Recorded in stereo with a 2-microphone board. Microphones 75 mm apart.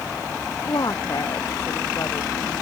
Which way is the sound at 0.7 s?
60° left (ahead or behind).